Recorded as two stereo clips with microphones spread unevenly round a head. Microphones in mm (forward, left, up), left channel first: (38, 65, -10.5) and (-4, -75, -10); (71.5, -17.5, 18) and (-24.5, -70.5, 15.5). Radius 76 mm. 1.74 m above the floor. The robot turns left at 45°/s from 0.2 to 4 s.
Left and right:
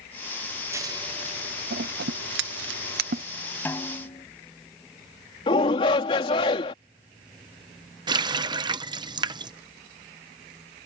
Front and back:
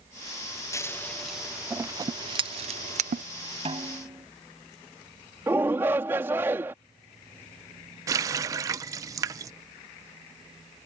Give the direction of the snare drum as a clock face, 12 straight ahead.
7 o'clock.